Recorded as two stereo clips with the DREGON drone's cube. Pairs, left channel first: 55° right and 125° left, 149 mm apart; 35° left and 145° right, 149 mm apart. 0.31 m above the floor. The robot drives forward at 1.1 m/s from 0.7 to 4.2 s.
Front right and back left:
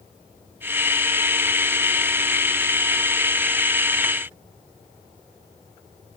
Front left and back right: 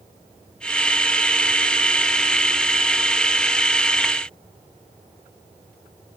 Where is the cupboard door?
I don't hear a cupboard door.